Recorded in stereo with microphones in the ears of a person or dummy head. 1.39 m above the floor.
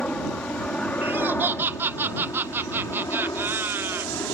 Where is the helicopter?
5° left (ahead or behind); by 4.3 s 15° left (ahead or behind).